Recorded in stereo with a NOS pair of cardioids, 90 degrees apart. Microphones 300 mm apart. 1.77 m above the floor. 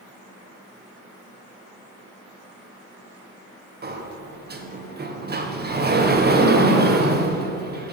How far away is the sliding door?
About 1.5 m.